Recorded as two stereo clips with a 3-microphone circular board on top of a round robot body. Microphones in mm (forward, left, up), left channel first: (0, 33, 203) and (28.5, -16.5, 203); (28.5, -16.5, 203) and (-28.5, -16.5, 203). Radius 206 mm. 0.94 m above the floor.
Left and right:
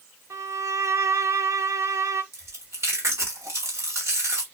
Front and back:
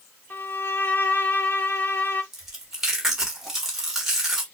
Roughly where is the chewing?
Right.